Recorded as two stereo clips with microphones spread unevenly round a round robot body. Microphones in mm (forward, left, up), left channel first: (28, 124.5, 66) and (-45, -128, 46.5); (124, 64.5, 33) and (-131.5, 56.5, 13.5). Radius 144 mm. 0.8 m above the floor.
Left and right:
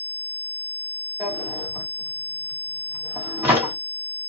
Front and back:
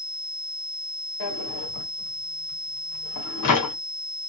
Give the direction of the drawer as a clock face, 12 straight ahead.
1 o'clock.